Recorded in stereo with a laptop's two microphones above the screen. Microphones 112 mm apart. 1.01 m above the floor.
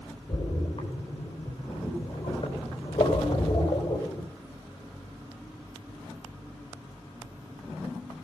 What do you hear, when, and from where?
0.3 s a splash: 60° left (ahead or behind), 3.5 m